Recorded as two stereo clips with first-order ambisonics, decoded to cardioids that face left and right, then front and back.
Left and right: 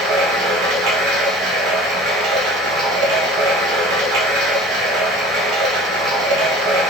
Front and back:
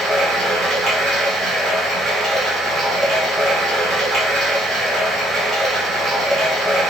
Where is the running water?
110° right, 0.8 m.